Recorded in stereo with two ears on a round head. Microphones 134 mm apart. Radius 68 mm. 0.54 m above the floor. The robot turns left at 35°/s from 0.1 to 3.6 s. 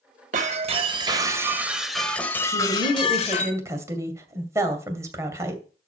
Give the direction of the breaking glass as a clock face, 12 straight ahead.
4 o'clock.